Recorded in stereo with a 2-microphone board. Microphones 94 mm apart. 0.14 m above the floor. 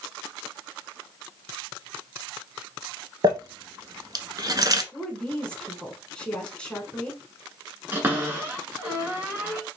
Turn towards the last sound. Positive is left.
turn(degrees=-20)  # may be behind; listen again after turning